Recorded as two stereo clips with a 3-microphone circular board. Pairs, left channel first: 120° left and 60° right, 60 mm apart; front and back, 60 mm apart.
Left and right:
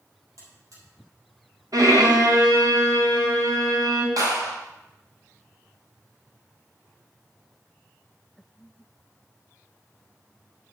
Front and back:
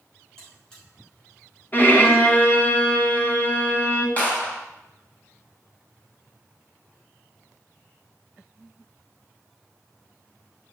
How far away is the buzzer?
About 5.5 m.